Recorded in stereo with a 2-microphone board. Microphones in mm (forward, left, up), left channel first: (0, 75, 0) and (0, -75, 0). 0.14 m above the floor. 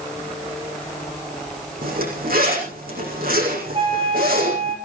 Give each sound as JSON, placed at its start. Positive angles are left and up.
{"t": 1.8, "sound": "a zipper", "side_deg": -80, "distance_m": 7.5}
{"t": 3.7, "sound": "a flute", "side_deg": -40, "distance_m": 7.0}